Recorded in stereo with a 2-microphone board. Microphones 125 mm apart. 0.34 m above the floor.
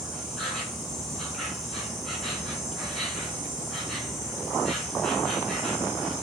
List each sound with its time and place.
0.0 s an insect: centre (ahead or behind), 4 m